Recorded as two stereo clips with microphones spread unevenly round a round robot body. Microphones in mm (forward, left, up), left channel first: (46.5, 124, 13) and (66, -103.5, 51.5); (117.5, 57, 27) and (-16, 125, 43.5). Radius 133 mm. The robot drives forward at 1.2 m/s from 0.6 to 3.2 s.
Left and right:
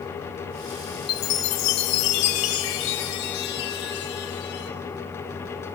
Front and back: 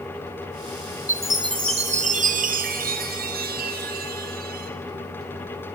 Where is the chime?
80° left, 1.5 m; by 4.7 s 145° left, 2.5 m.